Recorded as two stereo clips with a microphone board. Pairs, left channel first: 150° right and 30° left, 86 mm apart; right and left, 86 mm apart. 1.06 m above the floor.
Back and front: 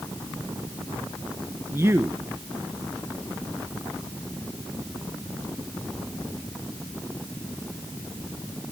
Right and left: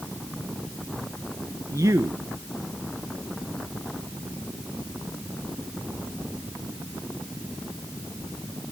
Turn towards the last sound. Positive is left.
turn(degrees=75)